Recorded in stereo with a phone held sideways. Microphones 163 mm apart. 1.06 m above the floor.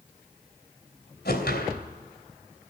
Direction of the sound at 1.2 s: 85° left.